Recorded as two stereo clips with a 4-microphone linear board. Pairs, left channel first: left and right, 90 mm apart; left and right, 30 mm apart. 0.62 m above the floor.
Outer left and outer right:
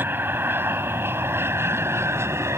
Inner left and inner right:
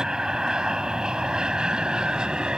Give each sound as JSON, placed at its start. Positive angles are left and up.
{"t": 0.0, "sound": "an aircraft", "side_deg": -25}